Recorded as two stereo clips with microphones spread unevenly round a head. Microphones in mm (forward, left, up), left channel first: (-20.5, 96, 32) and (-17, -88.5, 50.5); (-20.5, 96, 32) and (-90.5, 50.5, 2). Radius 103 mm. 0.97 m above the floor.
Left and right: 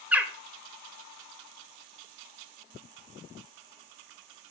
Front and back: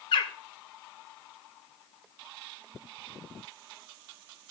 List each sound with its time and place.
0.1 s a bird: 5° right, 0.9 m